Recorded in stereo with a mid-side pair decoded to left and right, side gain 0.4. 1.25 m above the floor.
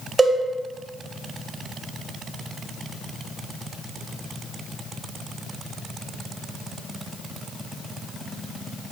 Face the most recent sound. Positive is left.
turn(degrees=-30)